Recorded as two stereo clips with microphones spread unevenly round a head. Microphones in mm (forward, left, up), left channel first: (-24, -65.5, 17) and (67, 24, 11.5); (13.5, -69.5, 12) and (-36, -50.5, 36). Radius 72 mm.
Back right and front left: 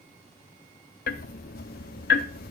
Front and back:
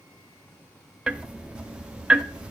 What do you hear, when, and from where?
1.1 s ticking: 130° right, 0.6 m